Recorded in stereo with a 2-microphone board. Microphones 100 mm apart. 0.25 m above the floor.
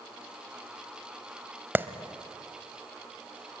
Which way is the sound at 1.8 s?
20° right (ahead or behind).